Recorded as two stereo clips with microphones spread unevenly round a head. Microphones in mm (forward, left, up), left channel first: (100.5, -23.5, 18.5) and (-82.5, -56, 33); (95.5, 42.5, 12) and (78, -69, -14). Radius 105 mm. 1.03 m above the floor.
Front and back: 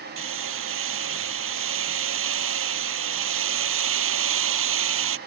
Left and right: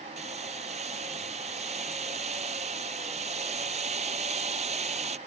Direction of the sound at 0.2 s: 160° right.